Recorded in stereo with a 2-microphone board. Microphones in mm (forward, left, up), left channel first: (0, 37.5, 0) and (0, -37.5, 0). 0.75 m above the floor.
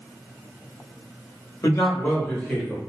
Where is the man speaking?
40° left (ahead or behind), 1.0 m; by 2.8 s centre (ahead or behind), 1.1 m.